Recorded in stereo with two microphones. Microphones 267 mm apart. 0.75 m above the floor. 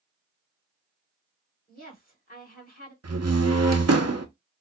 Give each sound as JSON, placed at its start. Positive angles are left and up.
{"t": 1.7, "sound": "a woman speaking", "side_deg": 35, "distance_m": 2.5}
{"t": 3.0, "sound": "a door slam", "side_deg": -65, "distance_m": 0.8}